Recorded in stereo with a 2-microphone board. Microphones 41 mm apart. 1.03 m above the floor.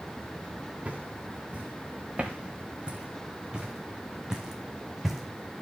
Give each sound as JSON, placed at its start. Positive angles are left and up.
{"t": 0.8, "sound": "footsteps", "side_deg": -35, "distance_m": 7.5}